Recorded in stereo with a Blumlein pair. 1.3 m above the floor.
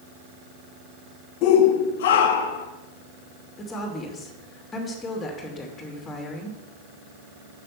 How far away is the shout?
About 0.9 m.